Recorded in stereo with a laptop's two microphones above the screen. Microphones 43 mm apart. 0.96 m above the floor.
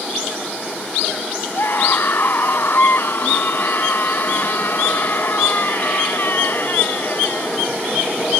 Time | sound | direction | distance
1.5 | a scream | 55° left (ahead or behind) | ?